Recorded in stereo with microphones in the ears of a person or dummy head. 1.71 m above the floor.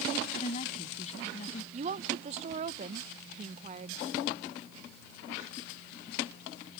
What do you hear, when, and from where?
0.3 s a woman speaking: 40° left (ahead or behind)
1.7 s a woman speaking: 35° right (ahead or behind)